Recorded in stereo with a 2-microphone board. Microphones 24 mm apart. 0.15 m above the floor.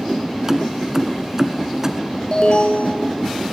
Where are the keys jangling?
25° right (ahead or behind), 1.4 m.